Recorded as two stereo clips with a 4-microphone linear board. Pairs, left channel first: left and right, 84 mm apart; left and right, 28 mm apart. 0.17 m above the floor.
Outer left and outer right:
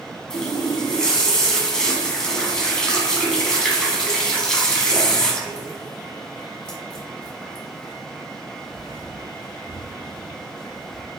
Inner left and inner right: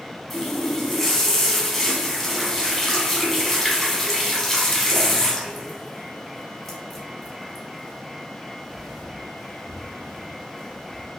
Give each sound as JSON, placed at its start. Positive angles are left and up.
{"t": 0.3, "sound": "a running tap", "side_deg": 10, "distance_m": 0.8}